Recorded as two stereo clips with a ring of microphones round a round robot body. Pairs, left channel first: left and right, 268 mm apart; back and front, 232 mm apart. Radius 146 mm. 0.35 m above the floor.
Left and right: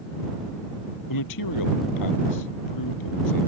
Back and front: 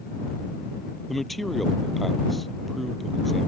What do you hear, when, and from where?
1.1 s a man speaking: 90° left